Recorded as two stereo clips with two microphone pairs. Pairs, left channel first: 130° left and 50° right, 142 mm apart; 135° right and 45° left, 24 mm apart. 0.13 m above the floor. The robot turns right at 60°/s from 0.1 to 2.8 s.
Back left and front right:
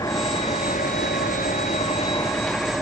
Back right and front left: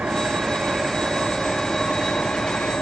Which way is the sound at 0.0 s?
60° left.